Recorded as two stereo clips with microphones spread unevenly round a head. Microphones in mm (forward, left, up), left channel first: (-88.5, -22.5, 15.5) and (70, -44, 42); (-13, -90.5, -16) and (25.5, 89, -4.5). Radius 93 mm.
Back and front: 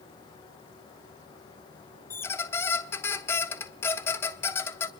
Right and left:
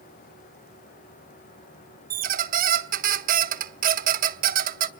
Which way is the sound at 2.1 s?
90° left.